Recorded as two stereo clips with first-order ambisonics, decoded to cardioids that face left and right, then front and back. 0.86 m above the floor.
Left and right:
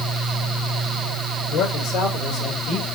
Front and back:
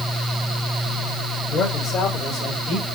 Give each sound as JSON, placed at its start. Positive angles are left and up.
{"t": 1.5, "sound": "a man speaking", "azimuth_deg": 60, "distance_m": 3.5}